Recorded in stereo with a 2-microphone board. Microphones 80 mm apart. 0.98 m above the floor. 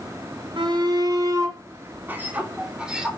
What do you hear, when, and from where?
0.6 s a shout: 75° right (ahead or behind), 2.0 m; by 3.1 s 10° right (ahead or behind), 3.5 m